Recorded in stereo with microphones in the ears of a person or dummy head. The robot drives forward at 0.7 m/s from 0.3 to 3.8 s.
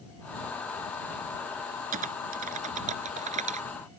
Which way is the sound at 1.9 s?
40° right (ahead or behind).